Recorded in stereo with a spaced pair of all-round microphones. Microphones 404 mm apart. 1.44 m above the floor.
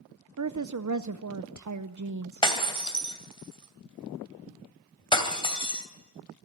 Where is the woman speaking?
45° right (ahead or behind), 0.5 m.